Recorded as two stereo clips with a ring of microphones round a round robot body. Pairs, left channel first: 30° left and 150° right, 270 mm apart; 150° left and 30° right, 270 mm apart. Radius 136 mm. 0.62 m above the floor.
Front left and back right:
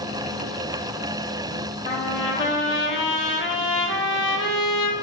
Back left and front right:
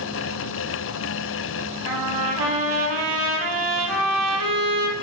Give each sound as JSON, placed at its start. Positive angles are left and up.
{"t": 1.9, "sound": "a trumpet", "azimuth_deg": -20, "distance_m": 2.5}